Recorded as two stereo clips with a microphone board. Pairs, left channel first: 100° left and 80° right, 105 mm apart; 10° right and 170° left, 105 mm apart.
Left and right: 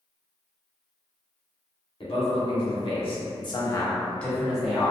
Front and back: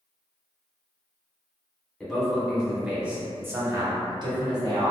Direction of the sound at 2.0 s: 75° left.